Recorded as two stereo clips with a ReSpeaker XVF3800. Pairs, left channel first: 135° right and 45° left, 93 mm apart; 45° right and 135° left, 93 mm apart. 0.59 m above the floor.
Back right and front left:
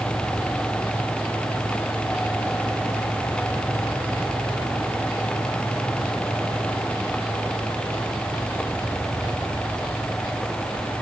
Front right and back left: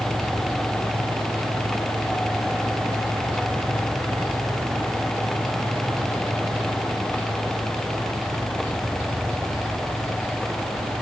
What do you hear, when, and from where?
Only background noise.